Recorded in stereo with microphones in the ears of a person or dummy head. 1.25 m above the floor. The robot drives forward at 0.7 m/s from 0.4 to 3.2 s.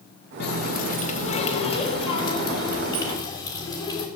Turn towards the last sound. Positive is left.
turn(degrees=20)  # may be behind; listen again after turning